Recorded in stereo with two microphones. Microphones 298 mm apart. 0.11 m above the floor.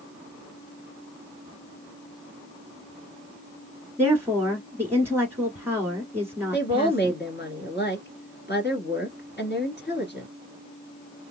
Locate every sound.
4.0 s a woman speaking: 10° right (ahead or behind), 1.4 m
6.5 s a woman speaking: 35° left (ahead or behind), 2.0 m